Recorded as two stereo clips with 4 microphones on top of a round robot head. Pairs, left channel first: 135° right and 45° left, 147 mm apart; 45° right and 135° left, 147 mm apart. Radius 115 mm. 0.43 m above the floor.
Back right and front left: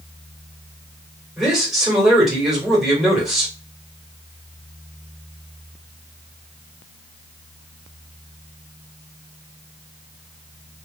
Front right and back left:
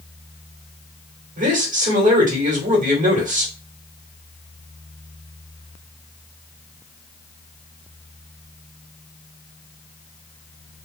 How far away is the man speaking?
About 2 m.